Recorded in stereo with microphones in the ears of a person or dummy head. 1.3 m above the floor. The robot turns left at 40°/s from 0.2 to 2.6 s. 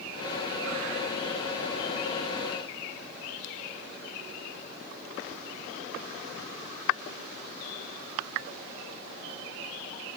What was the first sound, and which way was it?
Only background noise.